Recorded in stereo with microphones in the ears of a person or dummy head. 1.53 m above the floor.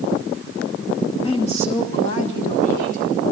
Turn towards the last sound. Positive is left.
turn(degrees=50)  # may be behind; listen again after turning